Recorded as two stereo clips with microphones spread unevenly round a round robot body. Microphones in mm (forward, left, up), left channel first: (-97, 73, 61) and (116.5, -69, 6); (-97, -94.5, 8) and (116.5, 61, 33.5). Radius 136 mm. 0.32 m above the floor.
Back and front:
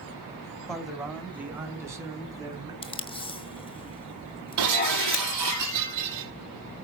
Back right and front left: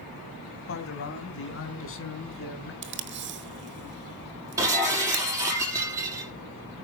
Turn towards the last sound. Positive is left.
turn(degrees=-45)